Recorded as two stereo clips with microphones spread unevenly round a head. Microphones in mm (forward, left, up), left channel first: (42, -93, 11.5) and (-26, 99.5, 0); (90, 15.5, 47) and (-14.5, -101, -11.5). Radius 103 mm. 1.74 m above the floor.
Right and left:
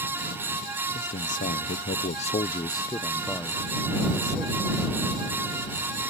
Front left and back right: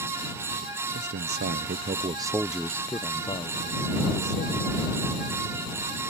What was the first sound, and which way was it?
A man speaking, 120° right.